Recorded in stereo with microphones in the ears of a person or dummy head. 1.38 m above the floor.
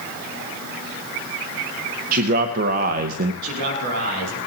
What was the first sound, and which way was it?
A man speaking, 45° right (ahead or behind).